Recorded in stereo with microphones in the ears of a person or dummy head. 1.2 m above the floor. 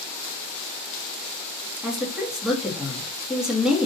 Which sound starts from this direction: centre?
A woman speaking, at 1.8 s.